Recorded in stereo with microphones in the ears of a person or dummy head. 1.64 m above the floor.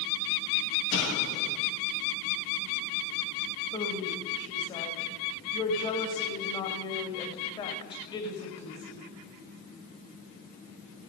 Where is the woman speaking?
30° left (ahead or behind), 2.5 m.